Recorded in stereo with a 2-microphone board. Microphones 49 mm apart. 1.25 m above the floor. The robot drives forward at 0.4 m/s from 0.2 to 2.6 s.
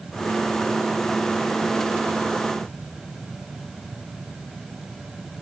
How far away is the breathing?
I don't hear breathing.